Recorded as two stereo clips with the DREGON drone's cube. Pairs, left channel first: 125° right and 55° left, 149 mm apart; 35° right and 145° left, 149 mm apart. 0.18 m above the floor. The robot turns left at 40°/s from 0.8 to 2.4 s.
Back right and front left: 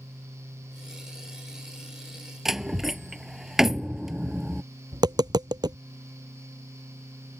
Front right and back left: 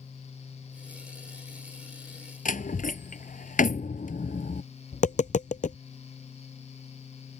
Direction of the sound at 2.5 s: 30° right.